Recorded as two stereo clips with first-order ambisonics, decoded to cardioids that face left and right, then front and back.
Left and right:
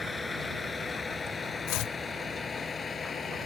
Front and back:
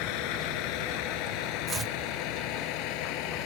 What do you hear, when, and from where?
0.0 s a vehicle: 15° left; by 3.5 s 20° left
1.7 s chopping: 110° left